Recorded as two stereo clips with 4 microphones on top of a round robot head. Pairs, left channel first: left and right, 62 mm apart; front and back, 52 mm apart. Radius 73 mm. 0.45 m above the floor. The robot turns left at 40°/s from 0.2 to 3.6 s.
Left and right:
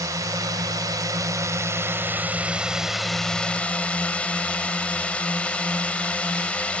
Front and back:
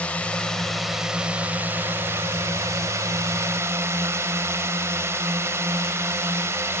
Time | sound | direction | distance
0.0 | a drone | 65° right | ?